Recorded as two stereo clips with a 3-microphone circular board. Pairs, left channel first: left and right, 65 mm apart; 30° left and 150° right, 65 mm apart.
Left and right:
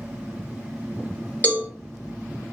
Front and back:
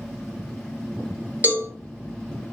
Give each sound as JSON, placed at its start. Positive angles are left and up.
{"t": 1.4, "sound": "a cowbell", "azimuth_deg": 155, "distance_m": 0.9}